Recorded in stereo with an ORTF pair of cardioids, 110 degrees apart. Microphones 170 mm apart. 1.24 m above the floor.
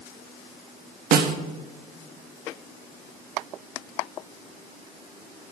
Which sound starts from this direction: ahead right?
A snare drum, at 1.1 s.